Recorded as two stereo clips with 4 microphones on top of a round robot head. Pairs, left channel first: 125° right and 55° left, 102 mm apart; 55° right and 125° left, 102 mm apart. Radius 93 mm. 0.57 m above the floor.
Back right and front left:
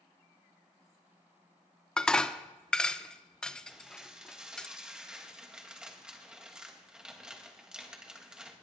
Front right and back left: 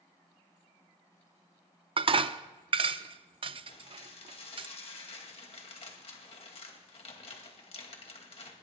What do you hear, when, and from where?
2.0 s dishes clattering: 150° left, 0.6 m
3.7 s dishes clattering: 30° right, 2 m